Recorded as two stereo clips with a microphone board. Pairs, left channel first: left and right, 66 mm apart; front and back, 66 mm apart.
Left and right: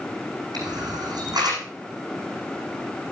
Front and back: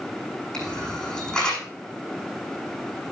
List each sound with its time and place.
0.5 s a camera shutter: 80° right, 6.5 m